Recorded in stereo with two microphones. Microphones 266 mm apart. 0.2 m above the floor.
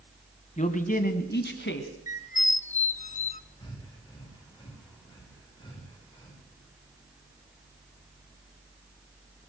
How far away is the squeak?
About 0.6 m.